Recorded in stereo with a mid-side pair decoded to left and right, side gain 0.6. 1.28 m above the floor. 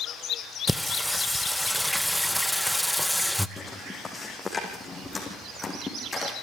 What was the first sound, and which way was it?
Singing, straight ahead.